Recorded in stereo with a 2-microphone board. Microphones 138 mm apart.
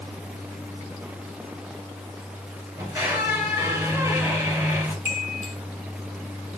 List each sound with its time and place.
2.8 s a squeak: 20° right (ahead or behind), 3 m
5.0 s a chime: 55° left (ahead or behind), 1.8 m